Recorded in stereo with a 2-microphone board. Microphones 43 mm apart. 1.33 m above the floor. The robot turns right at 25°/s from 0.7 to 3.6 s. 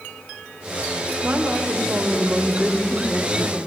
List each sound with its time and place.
1.2 s a woman speaking: 50° right, 1.3 m; by 3.7 s 10° left, 1.3 m